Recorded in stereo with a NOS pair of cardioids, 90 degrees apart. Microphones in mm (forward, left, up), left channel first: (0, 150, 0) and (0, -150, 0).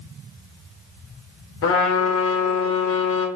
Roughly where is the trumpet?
Ahead left.